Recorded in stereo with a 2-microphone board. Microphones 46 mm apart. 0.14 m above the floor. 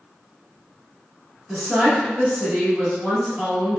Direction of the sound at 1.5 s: 25° right (ahead or behind).